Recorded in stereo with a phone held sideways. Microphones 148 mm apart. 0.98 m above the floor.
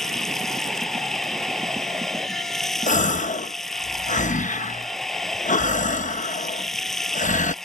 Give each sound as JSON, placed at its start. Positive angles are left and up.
{"t": 0.0, "sound": "running water", "side_deg": 0}
{"t": 2.9, "sound": "a gasp", "side_deg": 60}